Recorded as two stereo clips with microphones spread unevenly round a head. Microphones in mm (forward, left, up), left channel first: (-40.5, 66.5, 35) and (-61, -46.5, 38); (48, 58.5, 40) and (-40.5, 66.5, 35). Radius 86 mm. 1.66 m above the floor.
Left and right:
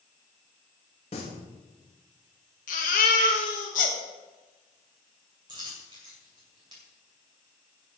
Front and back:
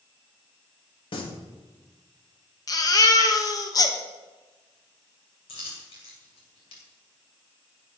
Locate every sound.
1.1 s singing: 25° left, 2 m
2.7 s a baby crying: 35° left, 1.3 m
5.5 s a dropped coin: 40° right, 2 m